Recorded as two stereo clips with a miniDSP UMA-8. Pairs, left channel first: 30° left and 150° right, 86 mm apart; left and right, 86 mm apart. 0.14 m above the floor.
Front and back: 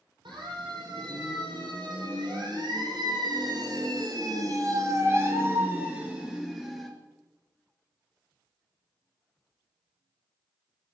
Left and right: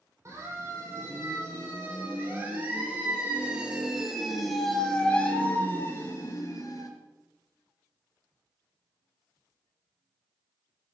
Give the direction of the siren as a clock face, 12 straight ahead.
5 o'clock.